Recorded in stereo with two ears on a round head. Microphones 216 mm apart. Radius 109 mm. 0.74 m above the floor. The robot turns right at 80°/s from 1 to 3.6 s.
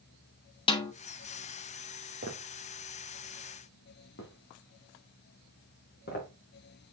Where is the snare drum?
20° left (ahead or behind), 1.3 m.